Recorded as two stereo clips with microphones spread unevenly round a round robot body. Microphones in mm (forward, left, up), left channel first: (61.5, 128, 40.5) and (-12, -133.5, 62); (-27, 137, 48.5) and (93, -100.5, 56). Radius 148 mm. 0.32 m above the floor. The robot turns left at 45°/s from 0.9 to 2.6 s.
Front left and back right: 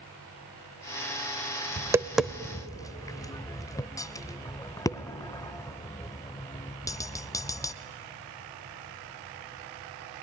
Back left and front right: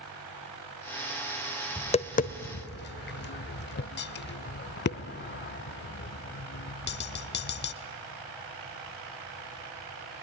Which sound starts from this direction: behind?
Tapping, at 1.8 s.